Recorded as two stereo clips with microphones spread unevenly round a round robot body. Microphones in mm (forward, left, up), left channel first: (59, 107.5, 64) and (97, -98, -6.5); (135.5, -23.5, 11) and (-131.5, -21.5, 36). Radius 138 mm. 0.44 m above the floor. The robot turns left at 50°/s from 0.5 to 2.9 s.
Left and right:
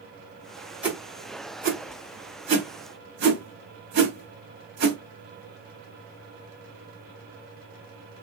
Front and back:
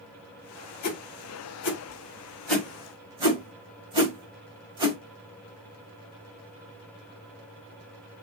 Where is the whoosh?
5° right, 3 m; by 5.0 s 105° right, 3 m.